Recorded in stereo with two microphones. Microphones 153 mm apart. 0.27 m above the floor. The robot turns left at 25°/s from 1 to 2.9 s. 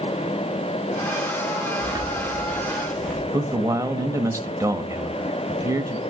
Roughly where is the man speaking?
Right.